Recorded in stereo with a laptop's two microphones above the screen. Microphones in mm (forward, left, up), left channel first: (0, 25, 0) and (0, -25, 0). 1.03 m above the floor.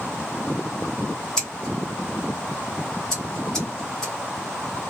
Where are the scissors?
10° left (ahead or behind), 1.0 m.